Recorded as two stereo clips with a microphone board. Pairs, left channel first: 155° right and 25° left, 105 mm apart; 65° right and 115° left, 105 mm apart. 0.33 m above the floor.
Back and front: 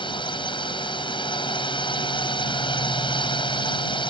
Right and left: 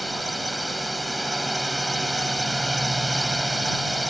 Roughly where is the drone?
Behind.